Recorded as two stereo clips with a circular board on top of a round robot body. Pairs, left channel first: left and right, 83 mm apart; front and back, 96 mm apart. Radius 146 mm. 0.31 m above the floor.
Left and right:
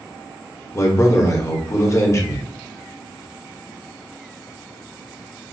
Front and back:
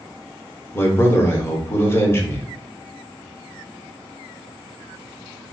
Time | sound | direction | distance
0.7 | a man speaking | 55° left | 1.2 m